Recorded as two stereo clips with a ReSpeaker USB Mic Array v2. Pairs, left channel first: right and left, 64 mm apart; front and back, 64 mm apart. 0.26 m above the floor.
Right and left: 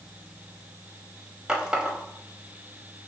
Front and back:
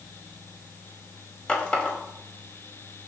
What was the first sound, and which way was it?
A running tap, 35° left.